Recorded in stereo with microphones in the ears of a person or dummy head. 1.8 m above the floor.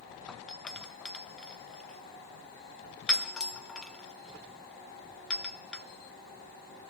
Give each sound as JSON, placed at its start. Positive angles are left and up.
{"t": 0.3, "sound": "a doorbell", "side_deg": 5, "distance_m": 1.7}